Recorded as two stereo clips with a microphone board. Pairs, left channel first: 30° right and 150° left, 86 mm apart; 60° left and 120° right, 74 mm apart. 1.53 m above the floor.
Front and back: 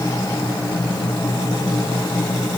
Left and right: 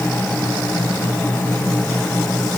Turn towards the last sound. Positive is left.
No sound to turn to.